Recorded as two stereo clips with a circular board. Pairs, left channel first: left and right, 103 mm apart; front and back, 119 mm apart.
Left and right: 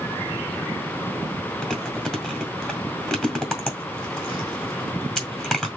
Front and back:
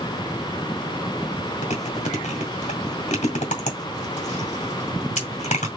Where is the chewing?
5° left, 2.0 m.